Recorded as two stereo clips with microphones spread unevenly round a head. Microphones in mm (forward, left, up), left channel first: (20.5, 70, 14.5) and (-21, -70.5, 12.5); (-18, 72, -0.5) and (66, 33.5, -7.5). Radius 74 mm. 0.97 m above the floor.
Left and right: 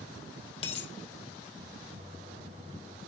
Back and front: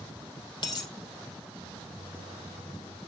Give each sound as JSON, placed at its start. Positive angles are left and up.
{"t": 0.6, "sound": "a dropped coin", "azimuth_deg": 125, "distance_m": 2.0}
{"t": 2.0, "sound": "a microwave", "azimuth_deg": -155, "distance_m": 4.0}